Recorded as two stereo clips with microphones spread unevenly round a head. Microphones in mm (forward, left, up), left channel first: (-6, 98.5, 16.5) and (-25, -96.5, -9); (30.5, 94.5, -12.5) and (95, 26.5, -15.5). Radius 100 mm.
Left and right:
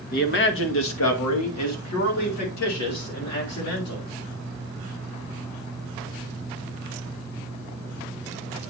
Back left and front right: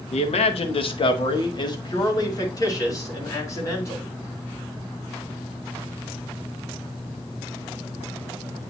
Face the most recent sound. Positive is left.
turn(degrees=75)